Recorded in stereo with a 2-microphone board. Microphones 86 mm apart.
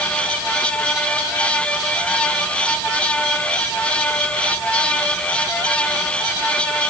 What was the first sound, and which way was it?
Only background noise.